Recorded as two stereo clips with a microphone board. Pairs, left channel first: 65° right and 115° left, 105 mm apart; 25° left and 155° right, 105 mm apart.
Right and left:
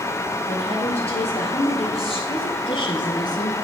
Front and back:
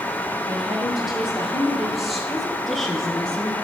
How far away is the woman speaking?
About 4 m.